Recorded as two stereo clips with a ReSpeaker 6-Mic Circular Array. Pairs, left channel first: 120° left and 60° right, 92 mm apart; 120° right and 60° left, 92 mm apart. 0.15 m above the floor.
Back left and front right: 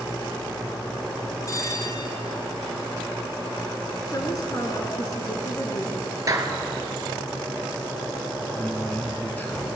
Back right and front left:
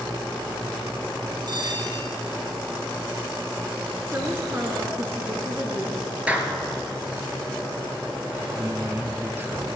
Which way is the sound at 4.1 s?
110° left.